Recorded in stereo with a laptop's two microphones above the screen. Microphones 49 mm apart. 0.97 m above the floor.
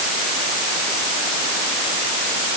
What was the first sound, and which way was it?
Only background noise.